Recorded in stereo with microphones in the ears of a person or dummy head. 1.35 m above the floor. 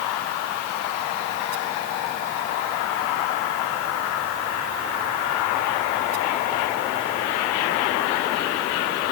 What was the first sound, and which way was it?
Only background noise.